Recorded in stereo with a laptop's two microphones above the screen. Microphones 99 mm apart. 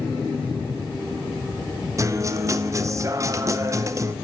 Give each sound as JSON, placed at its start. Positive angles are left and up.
{"t": 2.0, "sound": "a guitar", "side_deg": -35, "distance_m": 0.6}